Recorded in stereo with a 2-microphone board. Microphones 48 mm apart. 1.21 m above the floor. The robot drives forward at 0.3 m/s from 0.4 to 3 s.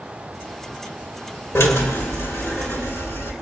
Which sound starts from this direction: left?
A drill, at 1.6 s.